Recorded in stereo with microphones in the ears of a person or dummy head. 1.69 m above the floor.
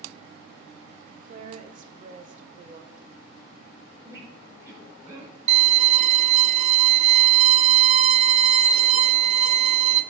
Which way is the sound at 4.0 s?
15° right (ahead or behind).